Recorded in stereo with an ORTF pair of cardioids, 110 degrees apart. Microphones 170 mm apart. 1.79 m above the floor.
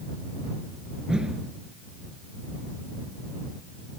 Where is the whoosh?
5° right.